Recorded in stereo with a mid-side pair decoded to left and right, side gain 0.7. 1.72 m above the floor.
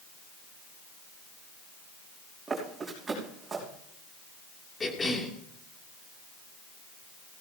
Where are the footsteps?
20° right, 6 m.